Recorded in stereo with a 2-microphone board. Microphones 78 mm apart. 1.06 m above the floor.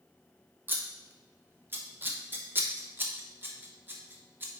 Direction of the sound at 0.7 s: 25° right (ahead or behind).